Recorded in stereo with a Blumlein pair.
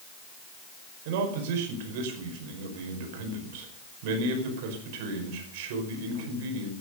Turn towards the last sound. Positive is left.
turn(degrees=-50)